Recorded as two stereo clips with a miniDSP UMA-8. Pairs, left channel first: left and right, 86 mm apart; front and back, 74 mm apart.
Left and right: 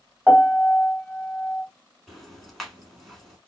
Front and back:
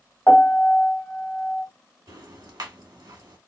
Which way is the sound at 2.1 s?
Straight behind.